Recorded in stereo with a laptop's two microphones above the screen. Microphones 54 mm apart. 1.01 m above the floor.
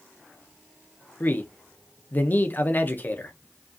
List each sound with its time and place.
1.2 s a man speaking: 35° left (ahead or behind), 0.6 m